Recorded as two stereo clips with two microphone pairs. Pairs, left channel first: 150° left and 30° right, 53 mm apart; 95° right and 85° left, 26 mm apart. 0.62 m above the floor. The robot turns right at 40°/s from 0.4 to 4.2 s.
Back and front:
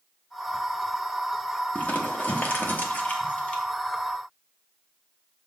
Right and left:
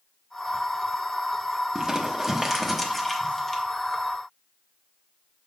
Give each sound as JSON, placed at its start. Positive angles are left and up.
{"t": 1.8, "sound": "crumpling", "azimuth_deg": 130, "distance_m": 0.9}